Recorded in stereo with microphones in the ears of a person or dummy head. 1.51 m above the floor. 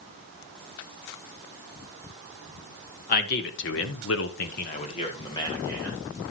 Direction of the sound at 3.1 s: 50° left (ahead or behind).